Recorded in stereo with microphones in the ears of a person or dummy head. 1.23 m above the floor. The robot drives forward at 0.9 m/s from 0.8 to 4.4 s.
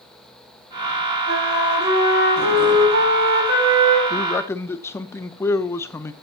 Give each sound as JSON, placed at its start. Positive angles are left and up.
{"t": 1.3, "sound": "a flute", "side_deg": -70, "distance_m": 4.5}
{"t": 4.1, "sound": "a man speaking", "side_deg": 25, "distance_m": 0.5}